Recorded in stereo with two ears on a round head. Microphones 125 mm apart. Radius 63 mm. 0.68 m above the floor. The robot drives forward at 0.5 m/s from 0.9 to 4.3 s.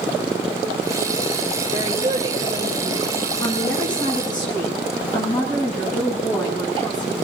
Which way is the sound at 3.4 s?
30° left (ahead or behind).